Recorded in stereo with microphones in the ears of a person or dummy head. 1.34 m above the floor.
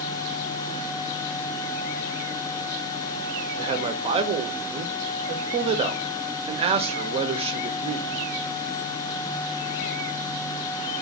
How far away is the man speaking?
About 0.6 m.